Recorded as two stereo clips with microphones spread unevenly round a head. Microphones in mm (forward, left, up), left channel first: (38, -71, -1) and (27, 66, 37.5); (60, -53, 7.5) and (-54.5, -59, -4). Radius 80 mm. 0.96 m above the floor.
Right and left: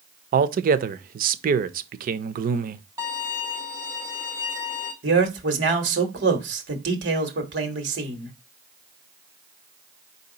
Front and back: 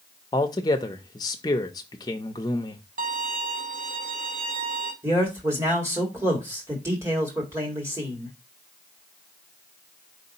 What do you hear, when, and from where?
0.3 s a man speaking: 70° left, 0.6 m
3.0 s a violin: 165° left, 1.2 m
5.0 s a man speaking: 110° left, 1.5 m